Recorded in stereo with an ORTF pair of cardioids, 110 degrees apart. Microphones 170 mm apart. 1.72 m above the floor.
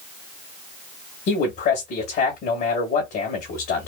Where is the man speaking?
70° left, 2 m.